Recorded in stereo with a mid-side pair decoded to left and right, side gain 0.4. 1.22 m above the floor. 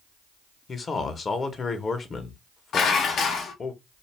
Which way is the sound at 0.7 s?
45° left.